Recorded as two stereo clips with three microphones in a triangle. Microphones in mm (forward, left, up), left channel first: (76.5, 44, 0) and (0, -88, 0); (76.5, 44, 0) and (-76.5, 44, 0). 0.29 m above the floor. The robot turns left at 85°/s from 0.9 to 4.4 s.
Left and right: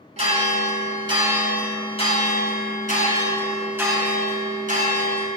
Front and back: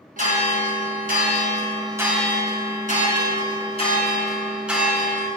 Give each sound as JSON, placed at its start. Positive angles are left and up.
{"t": 0.2, "sound": "a bell", "azimuth_deg": -160, "distance_m": 1.9}